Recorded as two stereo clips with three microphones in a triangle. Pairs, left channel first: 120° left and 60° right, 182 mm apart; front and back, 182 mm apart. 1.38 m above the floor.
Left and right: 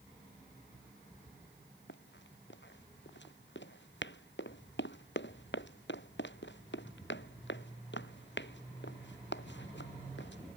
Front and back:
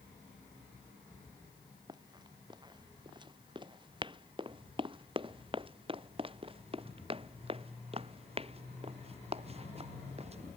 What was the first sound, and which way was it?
Running footsteps, 115° left.